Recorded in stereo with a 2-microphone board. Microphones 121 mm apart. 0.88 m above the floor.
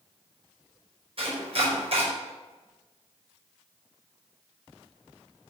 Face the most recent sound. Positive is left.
turn(degrees=-55)  # may be behind; listen again after turning